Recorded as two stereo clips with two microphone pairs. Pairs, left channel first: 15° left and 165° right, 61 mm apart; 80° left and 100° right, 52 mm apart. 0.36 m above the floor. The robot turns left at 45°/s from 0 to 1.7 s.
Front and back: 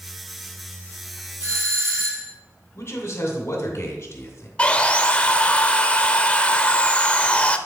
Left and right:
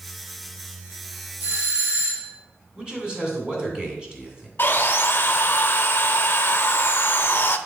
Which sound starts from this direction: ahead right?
A man speaking, at 2.8 s.